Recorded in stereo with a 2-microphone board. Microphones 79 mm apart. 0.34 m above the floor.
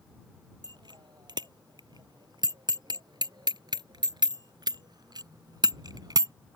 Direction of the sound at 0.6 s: 75° right (ahead or behind).